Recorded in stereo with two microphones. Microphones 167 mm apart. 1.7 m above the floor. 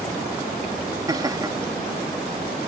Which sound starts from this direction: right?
Laughter, at 1.1 s.